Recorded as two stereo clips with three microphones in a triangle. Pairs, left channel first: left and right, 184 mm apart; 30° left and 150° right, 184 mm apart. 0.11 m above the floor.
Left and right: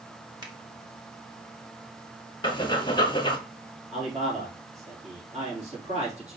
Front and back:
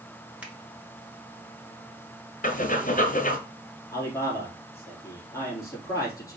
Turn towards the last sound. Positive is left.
turn(degrees=-40)